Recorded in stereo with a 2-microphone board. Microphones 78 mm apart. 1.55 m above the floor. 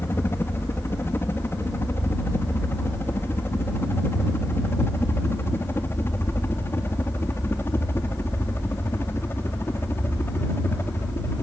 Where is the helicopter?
30° left (ahead or behind).